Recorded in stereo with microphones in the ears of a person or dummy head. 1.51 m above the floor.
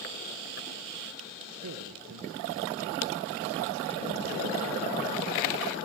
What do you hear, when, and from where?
1.6 s a man speaking: 85° right, 1.2 m